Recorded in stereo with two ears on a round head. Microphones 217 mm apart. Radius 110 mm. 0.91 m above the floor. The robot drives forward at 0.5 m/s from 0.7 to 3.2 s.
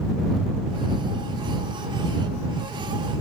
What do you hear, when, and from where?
Only background noise.